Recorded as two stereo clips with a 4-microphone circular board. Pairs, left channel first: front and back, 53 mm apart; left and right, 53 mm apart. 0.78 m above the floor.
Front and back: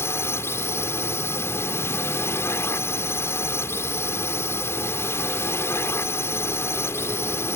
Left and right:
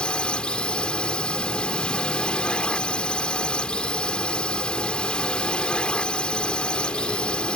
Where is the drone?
20° left.